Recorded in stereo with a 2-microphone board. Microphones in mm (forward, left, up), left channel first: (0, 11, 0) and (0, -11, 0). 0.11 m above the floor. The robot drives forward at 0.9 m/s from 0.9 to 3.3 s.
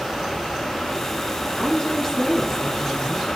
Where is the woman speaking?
30° left (ahead or behind), 1.3 m; by 3.3 s 20° left (ahead or behind), 1.8 m.